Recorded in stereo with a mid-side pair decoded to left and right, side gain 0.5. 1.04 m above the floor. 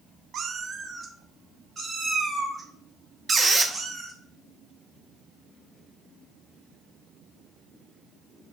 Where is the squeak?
25° right, 0.7 m.